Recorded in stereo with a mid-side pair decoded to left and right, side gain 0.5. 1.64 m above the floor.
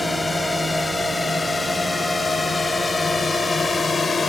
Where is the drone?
15° left; by 4.3 s 35° left.